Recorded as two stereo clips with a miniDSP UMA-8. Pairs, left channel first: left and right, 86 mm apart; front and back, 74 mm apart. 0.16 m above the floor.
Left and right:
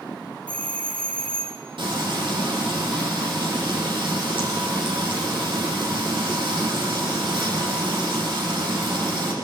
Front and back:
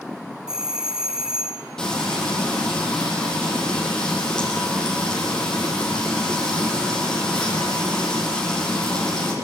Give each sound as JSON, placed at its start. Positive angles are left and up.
{"t": 0.5, "sound": "a doorbell", "azimuth_deg": 120, "distance_m": 1.8}
{"t": 1.8, "sound": "frying", "azimuth_deg": -80, "distance_m": 6.5}